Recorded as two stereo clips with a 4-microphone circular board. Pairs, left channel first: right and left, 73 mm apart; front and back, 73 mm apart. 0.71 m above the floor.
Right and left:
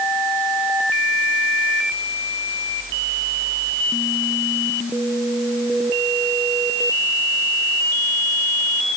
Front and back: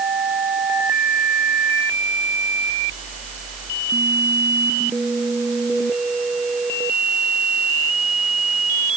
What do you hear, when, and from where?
Only background noise.